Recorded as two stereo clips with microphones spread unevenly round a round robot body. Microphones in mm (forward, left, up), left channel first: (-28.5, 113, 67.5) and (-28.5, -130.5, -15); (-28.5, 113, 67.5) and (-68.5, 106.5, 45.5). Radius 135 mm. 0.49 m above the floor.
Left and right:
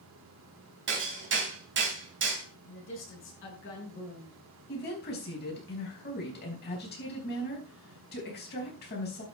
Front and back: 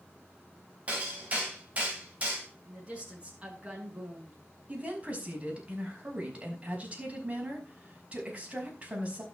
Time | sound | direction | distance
0.9 | hammering | 125° right | 3 m
2.6 | a woman speaking | 135° left | 6 m
4.7 | a woman speaking | 145° left | 5 m